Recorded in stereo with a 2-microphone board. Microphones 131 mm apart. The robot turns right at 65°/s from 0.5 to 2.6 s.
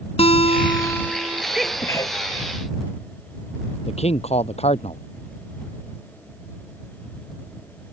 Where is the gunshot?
No gunshot in this recording.